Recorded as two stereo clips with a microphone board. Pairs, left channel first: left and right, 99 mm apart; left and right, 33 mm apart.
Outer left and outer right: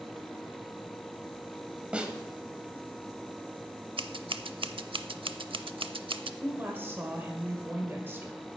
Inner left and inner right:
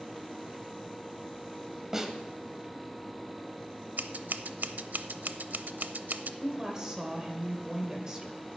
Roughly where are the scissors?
Right.